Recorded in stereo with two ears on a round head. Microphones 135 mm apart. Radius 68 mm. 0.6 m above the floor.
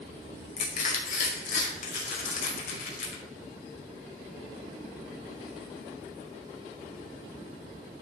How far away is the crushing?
About 2 m.